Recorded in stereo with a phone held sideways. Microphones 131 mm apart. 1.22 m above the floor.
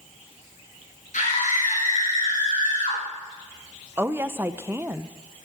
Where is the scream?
85° left, 7.5 m.